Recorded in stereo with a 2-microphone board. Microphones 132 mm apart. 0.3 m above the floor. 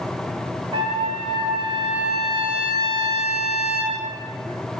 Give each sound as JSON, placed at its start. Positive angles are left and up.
{"t": 0.7, "sound": "a trumpet", "side_deg": -45, "distance_m": 0.7}